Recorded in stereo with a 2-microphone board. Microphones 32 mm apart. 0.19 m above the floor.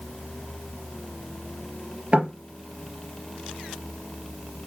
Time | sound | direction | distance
2.1 | knocking | 40° right (ahead or behind) | 3 m